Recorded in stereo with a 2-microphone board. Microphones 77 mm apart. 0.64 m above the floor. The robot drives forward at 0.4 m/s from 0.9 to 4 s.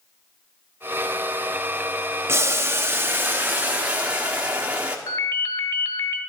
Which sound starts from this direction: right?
Boiling, at 2.3 s.